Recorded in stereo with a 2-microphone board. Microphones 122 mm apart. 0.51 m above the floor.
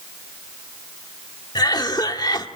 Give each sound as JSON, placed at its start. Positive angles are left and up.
{"t": 1.6, "sound": "a cough", "side_deg": 35, "distance_m": 1.4}